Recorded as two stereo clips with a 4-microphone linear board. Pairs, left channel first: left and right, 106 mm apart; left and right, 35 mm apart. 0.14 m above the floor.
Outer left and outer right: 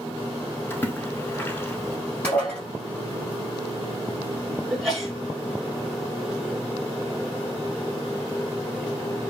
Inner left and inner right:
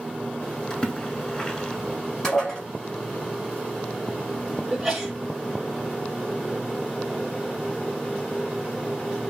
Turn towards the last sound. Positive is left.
turn(degrees=0)  # may be behind; listen again after turning